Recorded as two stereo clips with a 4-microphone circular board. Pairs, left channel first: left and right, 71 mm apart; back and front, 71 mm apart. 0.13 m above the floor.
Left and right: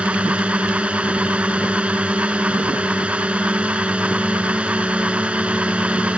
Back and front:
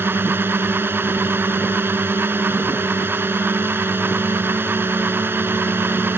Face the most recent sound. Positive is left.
turn(degrees=-30)